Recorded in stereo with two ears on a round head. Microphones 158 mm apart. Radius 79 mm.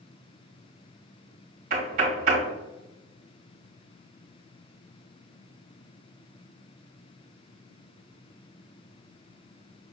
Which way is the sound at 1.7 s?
50° right (ahead or behind).